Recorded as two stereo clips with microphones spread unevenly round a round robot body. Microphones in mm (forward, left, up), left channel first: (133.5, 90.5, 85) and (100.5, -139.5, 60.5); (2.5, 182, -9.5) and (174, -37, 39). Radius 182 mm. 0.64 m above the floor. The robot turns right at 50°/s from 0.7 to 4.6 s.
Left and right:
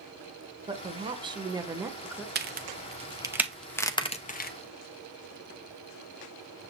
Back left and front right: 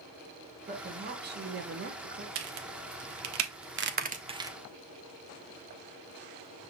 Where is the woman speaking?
105° right, 0.8 m; by 2.2 s 25° right, 0.8 m.